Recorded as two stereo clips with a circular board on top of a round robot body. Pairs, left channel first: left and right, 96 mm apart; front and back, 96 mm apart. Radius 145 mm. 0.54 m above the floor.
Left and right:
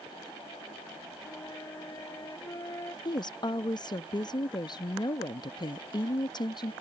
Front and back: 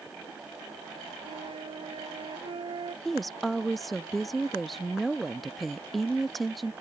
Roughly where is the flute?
Behind left.